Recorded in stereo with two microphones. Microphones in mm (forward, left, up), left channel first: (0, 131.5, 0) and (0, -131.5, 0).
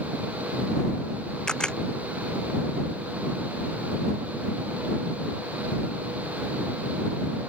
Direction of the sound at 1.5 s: 5° left (ahead or behind).